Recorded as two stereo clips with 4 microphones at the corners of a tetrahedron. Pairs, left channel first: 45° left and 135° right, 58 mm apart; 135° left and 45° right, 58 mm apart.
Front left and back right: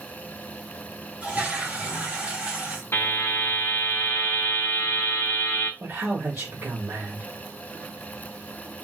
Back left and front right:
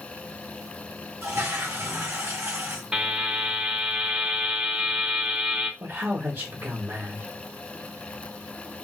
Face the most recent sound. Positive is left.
turn(degrees=-85)